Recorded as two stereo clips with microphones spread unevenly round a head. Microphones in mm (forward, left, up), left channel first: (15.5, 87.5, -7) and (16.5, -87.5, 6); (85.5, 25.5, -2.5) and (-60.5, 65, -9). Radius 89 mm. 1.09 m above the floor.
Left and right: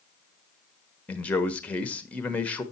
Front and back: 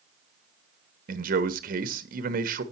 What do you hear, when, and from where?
1.1 s a man speaking: 170° left, 1.0 m